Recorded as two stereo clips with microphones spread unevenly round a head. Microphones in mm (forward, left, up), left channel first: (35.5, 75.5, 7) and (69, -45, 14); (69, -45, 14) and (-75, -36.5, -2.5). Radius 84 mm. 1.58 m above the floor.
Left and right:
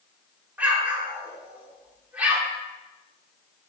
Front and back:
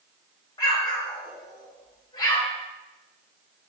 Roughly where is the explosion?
Ahead.